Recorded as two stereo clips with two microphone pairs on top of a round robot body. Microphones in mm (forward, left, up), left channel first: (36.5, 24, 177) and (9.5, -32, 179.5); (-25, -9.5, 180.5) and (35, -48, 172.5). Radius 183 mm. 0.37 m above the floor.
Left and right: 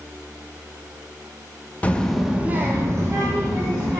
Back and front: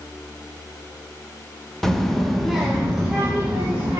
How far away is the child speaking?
About 0.7 m.